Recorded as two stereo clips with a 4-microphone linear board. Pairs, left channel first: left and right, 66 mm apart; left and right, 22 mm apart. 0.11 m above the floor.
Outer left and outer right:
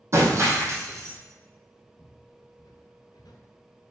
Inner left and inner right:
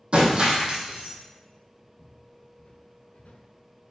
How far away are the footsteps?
About 1.7 m.